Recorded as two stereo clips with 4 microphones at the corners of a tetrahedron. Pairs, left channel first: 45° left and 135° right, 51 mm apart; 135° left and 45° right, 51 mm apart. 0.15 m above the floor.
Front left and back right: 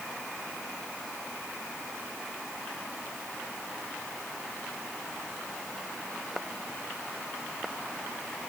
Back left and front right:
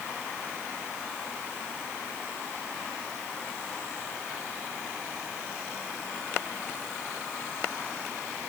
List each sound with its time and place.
Only background noise.